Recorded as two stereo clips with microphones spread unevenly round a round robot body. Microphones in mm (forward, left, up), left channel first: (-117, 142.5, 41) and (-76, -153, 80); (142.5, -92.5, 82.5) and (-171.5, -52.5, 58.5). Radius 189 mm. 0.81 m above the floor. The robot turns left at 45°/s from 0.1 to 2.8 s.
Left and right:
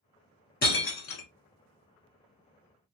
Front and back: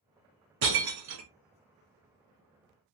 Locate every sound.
0.6 s breaking glass: 155° left, 1.0 m; by 1.3 s 125° left, 1.0 m